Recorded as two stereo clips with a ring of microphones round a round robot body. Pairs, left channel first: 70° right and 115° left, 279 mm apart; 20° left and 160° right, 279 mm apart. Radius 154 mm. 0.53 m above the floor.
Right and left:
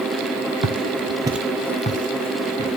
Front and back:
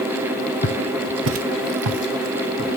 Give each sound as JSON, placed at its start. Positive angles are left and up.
{"t": 0.6, "sound": "footsteps", "azimuth_deg": 85, "distance_m": 1.0}